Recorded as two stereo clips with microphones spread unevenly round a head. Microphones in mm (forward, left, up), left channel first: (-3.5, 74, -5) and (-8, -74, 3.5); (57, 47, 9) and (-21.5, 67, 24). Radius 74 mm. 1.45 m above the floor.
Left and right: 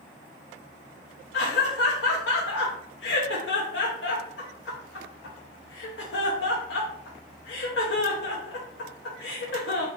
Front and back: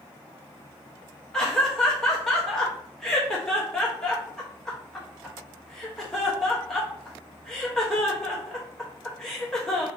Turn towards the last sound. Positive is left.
turn(degrees=70)